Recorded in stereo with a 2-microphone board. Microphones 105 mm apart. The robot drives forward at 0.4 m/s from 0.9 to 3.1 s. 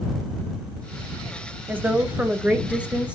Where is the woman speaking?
20° right (ahead or behind), 0.9 m; by 3.1 s 10° right (ahead or behind), 1.4 m.